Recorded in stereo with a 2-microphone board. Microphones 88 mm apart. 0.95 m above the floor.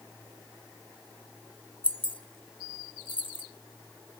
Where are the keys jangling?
75° left (ahead or behind), 0.9 m.